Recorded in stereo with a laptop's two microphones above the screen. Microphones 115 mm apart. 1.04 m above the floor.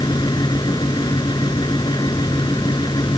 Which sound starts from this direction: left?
A fan, at 0.0 s.